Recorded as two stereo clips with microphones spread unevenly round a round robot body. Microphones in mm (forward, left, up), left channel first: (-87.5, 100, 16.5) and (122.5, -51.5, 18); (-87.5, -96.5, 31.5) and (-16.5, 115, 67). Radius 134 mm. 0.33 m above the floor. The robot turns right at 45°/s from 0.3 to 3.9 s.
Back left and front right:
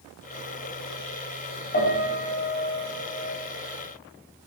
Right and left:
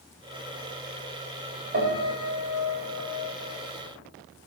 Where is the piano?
105° left, 1.8 m; by 3.3 s 175° left, 1.8 m.